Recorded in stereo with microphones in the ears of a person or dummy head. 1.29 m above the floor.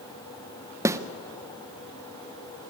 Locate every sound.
0.8 s a snare drum: 10° right (ahead or behind), 0.7 m